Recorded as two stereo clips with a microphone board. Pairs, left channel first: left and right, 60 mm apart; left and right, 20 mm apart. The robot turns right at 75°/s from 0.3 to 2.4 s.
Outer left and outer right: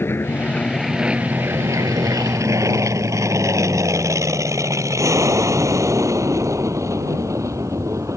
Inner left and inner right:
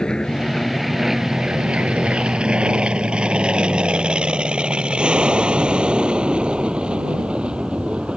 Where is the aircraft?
40° left (ahead or behind); by 8.2 s 60° right (ahead or behind).